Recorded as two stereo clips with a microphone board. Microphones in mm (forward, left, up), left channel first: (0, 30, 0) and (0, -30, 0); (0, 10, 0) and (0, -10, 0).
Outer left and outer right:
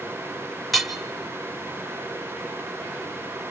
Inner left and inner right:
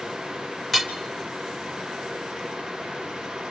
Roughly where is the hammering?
Centre.